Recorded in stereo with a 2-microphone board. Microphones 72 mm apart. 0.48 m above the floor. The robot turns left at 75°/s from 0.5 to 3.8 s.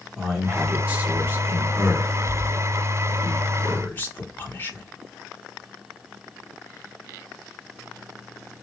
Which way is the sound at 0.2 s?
10° right (ahead or behind).